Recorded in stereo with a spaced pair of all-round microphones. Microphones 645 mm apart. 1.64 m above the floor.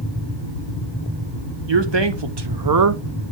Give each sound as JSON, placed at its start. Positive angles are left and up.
{"t": 1.7, "sound": "a man speaking", "side_deg": -45, "distance_m": 1.2}